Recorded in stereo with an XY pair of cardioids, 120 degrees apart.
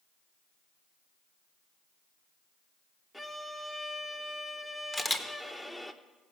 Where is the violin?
10° left, 0.8 m.